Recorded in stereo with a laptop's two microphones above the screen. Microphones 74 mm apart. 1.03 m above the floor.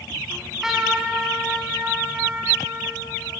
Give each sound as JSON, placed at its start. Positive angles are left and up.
{"t": 0.3, "sound": "a trumpet", "side_deg": -5, "distance_m": 4.0}